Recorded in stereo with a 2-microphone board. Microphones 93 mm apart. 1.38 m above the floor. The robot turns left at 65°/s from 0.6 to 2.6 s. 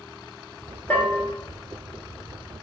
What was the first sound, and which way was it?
A bell, 15° left (ahead or behind).